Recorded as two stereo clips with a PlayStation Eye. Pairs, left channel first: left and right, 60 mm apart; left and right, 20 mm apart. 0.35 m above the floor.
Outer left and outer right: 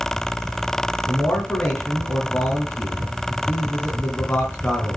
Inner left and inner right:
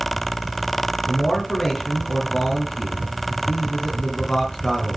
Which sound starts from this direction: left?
A man speaking, at 1.1 s.